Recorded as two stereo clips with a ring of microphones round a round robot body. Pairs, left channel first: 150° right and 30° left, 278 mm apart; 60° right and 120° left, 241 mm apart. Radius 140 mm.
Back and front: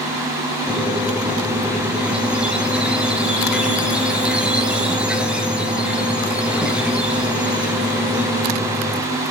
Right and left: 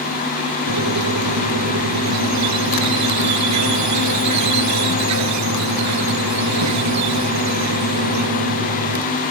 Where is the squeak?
115° left, 2.5 m.